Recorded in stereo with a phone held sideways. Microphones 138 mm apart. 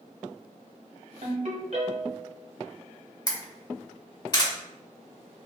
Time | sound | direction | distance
1.2 | a ringtone | 50° right (ahead or behind) | 1.7 m
3.3 | a camera shutter | 30° left (ahead or behind) | 1.7 m